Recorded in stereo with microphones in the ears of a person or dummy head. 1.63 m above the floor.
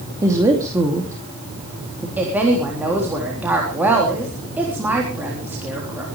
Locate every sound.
0.2 s a woman speaking: 15° right (ahead or behind), 2.5 m
2.2 s a woman speaking: 5° right (ahead or behind), 3.5 m